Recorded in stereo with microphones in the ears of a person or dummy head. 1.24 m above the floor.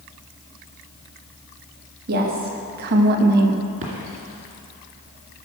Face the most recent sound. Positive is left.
turn(degrees=-40)  # may be behind; listen again after turning